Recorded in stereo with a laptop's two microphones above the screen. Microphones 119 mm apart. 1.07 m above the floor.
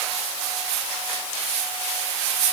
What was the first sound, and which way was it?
Only background noise.